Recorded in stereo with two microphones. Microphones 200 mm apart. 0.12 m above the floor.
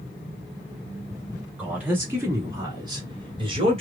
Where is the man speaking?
5° right (ahead or behind), 1.9 m; by 3.8 s 30° right (ahead or behind), 1.8 m.